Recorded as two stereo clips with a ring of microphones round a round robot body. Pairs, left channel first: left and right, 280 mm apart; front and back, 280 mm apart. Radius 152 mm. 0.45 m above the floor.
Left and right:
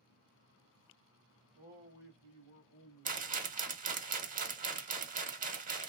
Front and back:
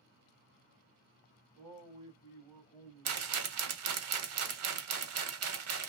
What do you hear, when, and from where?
1.6 s a man speaking: 95° left, 1.8 m; by 4.0 s 40° left, 1.8 m
3.0 s a rattle: 150° right, 0.8 m